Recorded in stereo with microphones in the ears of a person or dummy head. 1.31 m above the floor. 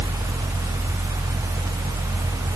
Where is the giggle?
I don't hear a giggle.